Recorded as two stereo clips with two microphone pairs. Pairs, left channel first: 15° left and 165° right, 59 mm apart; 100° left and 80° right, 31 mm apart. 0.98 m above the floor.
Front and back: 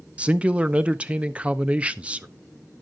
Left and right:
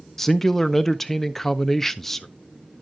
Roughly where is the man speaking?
Behind.